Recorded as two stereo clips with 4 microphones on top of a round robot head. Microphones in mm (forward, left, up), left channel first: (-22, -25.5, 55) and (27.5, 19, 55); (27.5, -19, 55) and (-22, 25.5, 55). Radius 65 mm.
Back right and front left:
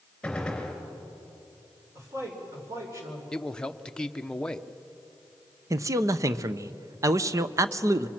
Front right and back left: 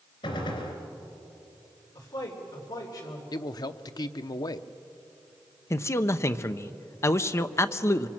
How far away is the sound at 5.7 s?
About 0.8 m.